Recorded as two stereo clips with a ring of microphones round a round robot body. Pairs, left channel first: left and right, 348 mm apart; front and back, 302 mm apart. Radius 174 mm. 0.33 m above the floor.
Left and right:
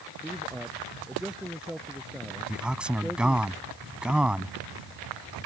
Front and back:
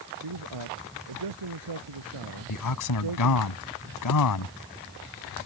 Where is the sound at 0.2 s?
Straight behind.